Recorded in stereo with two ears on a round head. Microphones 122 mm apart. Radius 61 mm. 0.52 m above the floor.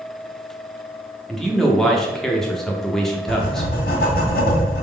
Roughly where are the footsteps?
No footsteps in this recording.